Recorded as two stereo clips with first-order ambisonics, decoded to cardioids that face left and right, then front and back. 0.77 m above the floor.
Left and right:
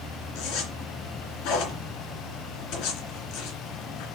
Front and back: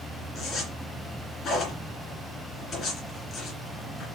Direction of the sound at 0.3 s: 60° left.